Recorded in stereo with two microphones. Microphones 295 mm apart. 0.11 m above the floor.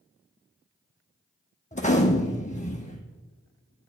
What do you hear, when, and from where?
1.7 s a gunshot: 25° left (ahead or behind), 1.1 m